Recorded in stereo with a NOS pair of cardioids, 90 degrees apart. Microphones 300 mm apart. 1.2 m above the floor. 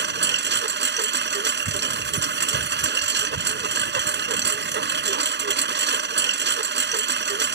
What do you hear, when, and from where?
0.0 s a lawn mower: 40° right